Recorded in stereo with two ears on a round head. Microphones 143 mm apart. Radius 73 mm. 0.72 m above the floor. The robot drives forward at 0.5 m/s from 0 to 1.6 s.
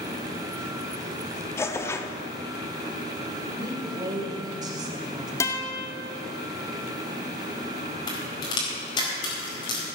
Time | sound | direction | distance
1.6 | tearing paper | 20° left (ahead or behind) | 1.0 m
3.6 | a woman speaking | 25° right (ahead or behind) | 2.5 m
5.4 | a guitar | 20° left (ahead or behind) | 1.8 m
8.1 | a crack | 25° left (ahead or behind) | 4.5 m